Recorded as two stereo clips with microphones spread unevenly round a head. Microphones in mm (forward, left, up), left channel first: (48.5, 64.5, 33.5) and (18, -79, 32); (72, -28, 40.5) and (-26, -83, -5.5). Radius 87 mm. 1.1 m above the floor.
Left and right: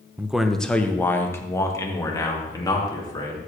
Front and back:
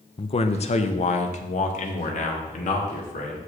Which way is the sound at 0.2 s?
25° right.